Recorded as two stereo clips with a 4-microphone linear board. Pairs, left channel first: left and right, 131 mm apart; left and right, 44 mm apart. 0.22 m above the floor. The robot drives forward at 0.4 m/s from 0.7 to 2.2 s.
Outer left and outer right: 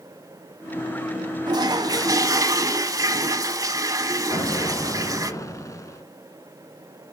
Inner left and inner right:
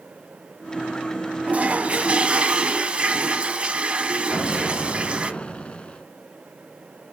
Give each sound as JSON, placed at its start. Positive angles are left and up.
{"t": 1.5, "sound": "a toilet flushing", "side_deg": -35, "distance_m": 0.7}
{"t": 4.3, "sound": "an explosion", "side_deg": 25, "distance_m": 1.3}